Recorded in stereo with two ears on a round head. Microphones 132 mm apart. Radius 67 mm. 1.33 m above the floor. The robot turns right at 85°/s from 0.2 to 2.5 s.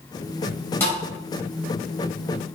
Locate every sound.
0.8 s a thud: 15° left (ahead or behind), 3 m; by 1.0 s 30° left (ahead or behind), 3 m